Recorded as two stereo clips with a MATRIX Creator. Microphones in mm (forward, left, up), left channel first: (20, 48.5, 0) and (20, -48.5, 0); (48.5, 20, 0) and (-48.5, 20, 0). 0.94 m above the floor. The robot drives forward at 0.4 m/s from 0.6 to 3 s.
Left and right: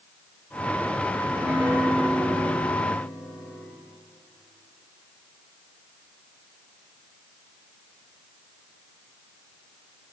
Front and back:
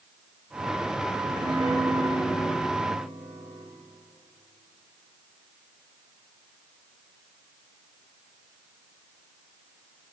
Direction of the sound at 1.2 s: 160° right.